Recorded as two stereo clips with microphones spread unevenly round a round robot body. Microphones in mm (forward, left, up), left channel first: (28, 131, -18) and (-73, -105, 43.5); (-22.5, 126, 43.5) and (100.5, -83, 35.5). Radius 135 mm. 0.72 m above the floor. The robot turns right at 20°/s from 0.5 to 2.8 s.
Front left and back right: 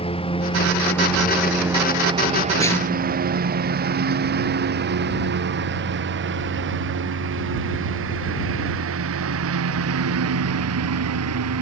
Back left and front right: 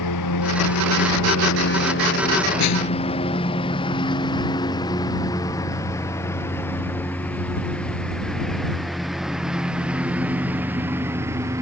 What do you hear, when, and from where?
0.0 s a lawn mower: 135° left; by 11.6 s 140° right
2.6 s a snare drum: 145° left; by 3.3 s 150° left